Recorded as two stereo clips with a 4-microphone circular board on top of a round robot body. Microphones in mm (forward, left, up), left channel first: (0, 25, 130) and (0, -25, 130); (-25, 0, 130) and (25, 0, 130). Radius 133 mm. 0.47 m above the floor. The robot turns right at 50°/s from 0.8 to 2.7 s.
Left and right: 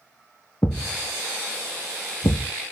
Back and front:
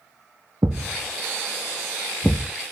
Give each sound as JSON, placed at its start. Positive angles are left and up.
{"t": 0.6, "sound": "a thud", "azimuth_deg": 30, "distance_m": 0.7}